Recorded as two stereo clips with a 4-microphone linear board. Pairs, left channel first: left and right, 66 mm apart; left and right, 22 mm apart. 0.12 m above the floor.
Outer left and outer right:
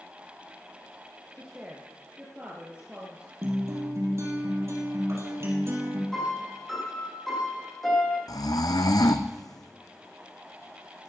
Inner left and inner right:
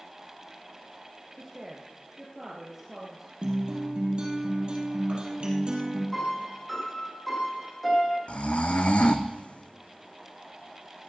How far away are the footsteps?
No footsteps in this recording.